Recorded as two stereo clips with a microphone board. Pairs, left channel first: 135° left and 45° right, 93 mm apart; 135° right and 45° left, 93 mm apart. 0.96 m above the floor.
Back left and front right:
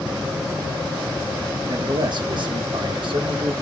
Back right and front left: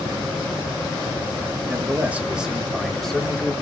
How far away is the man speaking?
About 1.5 m.